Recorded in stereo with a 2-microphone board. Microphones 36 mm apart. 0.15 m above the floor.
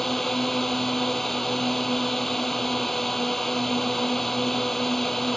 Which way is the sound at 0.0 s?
10° left (ahead or behind).